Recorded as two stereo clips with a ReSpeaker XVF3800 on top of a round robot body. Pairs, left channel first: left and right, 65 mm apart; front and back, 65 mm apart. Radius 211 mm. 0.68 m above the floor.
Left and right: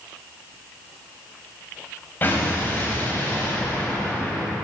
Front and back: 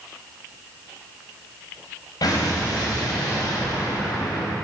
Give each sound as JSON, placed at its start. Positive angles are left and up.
{"t": 2.2, "sound": "an explosion", "azimuth_deg": 30, "distance_m": 3.5}